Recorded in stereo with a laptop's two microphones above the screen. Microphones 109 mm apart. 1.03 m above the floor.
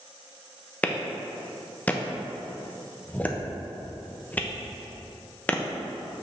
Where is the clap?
15° left (ahead or behind), 0.7 m.